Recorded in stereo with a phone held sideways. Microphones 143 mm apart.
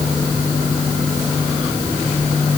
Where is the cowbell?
I don't hear a cowbell.